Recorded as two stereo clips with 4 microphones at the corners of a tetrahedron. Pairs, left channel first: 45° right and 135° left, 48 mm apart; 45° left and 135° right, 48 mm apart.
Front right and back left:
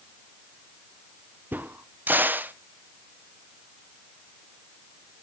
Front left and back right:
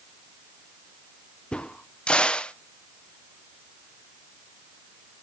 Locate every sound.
1.5 s a crack: 110° left, 0.5 m